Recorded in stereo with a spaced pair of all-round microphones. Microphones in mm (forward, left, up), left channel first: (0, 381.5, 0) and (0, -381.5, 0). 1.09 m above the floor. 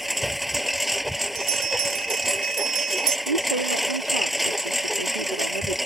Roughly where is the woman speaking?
Right.